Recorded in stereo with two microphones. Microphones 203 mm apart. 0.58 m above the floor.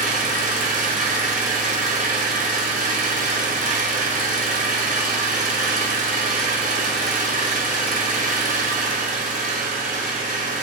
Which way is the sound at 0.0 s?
45° right (ahead or behind).